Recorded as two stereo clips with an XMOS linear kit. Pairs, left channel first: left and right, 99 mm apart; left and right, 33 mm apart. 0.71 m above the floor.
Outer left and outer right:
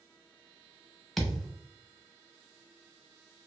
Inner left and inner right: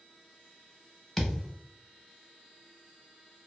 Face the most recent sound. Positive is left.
turn(degrees=0)  # may be behind; listen again after turning